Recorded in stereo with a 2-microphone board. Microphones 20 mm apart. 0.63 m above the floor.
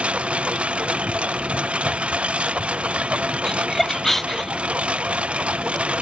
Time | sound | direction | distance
0.0 | a lawn mower | 90° right | ?
3.5 | laughter | 15° left (ahead or behind) | ?